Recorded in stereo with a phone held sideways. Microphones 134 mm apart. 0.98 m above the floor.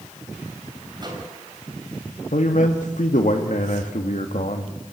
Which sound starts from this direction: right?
A microwave, at 1.0 s.